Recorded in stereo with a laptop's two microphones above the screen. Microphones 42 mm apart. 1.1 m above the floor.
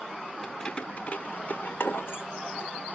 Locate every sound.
0.4 s keys jangling: 15° left (ahead or behind), 2 m; by 2.2 s 70° left (ahead or behind), 2.5 m